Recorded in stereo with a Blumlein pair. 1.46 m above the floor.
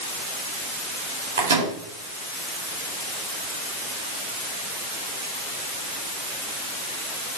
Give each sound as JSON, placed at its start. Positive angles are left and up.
{"t": 1.4, "sound": "a microwave", "azimuth_deg": -60, "distance_m": 5.0}